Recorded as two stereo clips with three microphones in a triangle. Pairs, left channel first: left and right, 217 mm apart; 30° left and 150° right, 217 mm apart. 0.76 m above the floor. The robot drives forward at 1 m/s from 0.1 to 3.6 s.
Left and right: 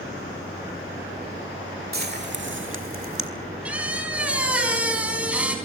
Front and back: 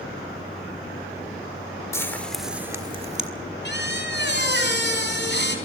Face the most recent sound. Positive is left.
turn(degrees=-5)